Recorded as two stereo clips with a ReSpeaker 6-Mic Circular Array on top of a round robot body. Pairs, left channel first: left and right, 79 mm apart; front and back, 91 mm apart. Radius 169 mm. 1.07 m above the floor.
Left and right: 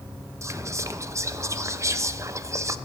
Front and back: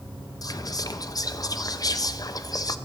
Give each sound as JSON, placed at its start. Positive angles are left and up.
{"t": 0.4, "sound": "whispering", "azimuth_deg": -40, "distance_m": 0.6}